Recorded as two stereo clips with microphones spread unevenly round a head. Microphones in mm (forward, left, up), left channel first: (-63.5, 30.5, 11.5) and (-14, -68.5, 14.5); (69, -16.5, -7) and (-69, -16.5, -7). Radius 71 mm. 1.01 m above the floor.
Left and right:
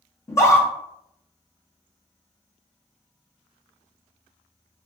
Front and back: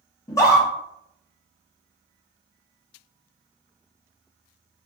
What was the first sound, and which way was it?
A scream, 60° left.